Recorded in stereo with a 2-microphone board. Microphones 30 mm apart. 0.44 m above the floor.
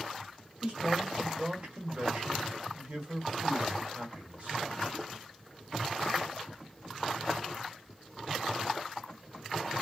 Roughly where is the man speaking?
Right.